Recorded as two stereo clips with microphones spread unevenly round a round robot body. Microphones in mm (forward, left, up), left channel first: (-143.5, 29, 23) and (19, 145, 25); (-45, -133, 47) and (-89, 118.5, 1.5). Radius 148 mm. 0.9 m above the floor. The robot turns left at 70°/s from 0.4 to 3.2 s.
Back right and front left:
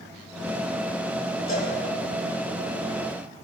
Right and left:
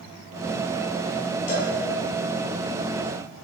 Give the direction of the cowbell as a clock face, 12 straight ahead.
3 o'clock.